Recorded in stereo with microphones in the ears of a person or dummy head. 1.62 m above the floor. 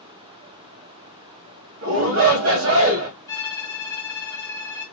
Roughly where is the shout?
Right.